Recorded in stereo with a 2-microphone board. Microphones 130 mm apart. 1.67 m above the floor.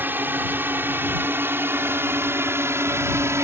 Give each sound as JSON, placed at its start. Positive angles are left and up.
{"t": 0.0, "sound": "a drone", "side_deg": -15}